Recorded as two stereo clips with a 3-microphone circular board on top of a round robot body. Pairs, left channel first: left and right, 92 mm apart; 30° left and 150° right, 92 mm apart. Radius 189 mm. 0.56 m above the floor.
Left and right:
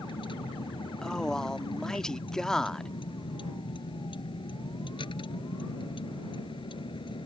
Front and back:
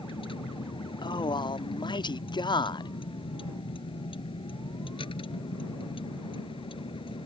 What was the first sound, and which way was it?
A vehicle, 60° left.